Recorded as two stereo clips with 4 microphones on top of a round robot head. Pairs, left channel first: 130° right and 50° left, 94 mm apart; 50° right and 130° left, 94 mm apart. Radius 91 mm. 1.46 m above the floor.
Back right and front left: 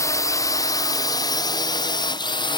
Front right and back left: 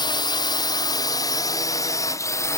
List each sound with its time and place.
0.0 s a drone: 80° right; by 2.6 s 105° right